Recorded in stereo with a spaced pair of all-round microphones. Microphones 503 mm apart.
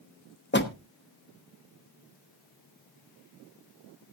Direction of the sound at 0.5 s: 20° left (ahead or behind).